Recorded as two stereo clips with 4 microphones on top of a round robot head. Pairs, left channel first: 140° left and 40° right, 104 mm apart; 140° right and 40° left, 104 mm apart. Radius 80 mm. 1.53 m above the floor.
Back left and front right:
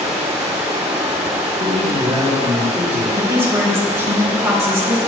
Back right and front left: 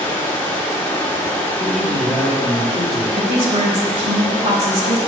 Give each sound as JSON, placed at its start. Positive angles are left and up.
{"t": 0.0, "sound": "running water", "azimuth_deg": -75, "distance_m": 1.2}
{"t": 1.6, "sound": "a man speaking", "azimuth_deg": -45, "distance_m": 3.0}
{"t": 3.2, "sound": "a woman speaking", "azimuth_deg": 25, "distance_m": 1.6}